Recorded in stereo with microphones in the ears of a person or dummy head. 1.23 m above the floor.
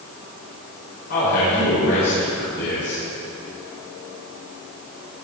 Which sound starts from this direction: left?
A man speaking, at 1.1 s.